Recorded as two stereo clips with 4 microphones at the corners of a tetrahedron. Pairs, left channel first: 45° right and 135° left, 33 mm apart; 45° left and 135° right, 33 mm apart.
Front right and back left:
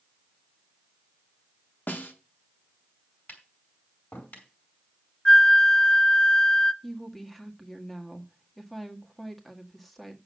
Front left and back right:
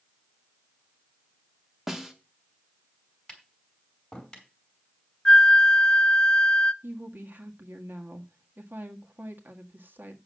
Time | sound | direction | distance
1.9 | a snare drum | 55° right | 1.8 m
3.3 | tapping | 30° right | 5 m
5.2 | a flute | 5° right | 0.6 m
6.8 | a woman speaking | 130° right | 1.7 m